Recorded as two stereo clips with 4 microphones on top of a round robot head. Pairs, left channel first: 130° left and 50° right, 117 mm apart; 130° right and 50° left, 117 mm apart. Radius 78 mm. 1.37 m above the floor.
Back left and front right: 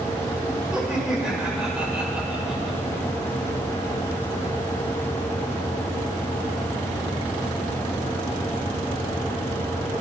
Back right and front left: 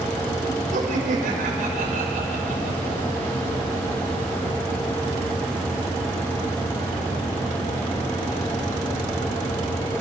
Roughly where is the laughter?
Ahead left.